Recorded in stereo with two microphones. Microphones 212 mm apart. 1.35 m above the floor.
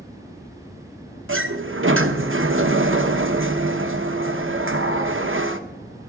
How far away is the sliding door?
About 0.9 m.